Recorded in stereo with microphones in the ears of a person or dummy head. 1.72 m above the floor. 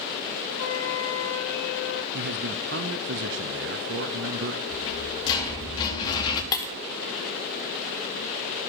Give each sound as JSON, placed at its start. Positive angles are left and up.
{"t": 0.6, "sound": "a flute", "side_deg": 85, "distance_m": 1.0}
{"t": 2.1, "sound": "a man speaking", "side_deg": -50, "distance_m": 0.5}
{"t": 4.7, "sound": "a rattle", "side_deg": 25, "distance_m": 1.3}
{"t": 6.5, "sound": "breaking glass", "side_deg": 20, "distance_m": 1.0}